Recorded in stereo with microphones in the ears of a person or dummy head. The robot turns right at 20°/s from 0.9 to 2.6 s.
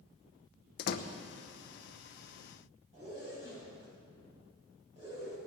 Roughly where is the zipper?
Right.